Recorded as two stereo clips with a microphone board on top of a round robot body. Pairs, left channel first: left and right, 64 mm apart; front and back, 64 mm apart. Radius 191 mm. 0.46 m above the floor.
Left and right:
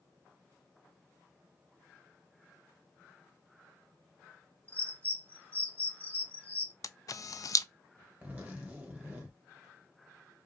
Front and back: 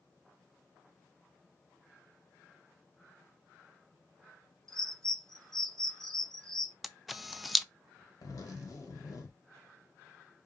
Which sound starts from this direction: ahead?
A zipper, at 8.2 s.